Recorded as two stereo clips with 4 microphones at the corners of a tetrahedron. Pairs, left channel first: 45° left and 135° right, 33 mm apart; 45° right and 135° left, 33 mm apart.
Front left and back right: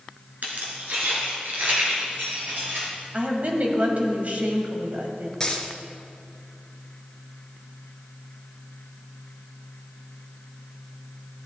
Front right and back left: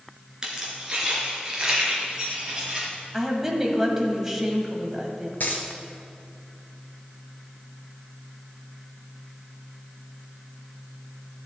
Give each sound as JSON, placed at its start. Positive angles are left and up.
{"t": 0.4, "sound": "keys jangling", "azimuth_deg": -155, "distance_m": 2.5}
{"t": 3.1, "sound": "a woman speaking", "azimuth_deg": -155, "distance_m": 1.6}
{"t": 5.4, "sound": "a dropped coin", "azimuth_deg": -25, "distance_m": 1.4}